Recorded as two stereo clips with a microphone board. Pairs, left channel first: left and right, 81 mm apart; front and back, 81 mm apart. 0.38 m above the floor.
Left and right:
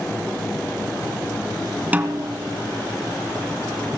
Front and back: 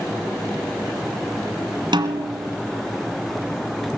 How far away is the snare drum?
About 2 m.